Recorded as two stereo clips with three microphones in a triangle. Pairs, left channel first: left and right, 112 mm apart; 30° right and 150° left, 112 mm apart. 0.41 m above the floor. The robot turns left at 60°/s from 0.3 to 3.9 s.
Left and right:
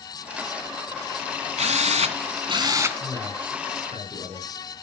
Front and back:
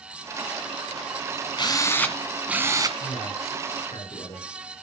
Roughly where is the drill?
Right.